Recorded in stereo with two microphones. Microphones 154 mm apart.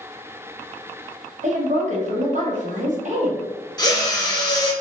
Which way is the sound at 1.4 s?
50° right (ahead or behind).